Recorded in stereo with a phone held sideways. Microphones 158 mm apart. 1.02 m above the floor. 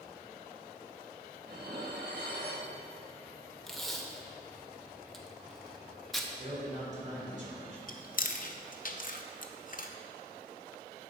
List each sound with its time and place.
1.4 s dishes clattering: 75° right (ahead or behind), 1.1 m
3.7 s tape being pulled: centre (ahead or behind), 0.8 m
6.4 s a man speaking: 50° right (ahead or behind), 3.5 m
7.9 s chewing: 55° left (ahead or behind), 0.6 m